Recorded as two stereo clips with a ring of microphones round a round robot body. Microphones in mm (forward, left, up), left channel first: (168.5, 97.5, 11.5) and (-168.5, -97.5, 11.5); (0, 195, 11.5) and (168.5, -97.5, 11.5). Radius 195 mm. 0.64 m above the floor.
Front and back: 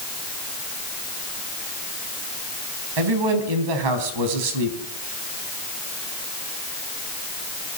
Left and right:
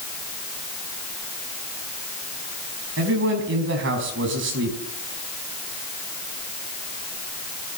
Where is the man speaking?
120° right, 4.5 m.